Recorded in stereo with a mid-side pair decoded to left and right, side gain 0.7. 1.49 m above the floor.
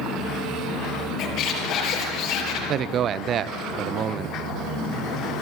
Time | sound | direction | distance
1.2 | a squeak | 55° left | 5.5 m
2.7 | a man speaking | 40° right | 1.1 m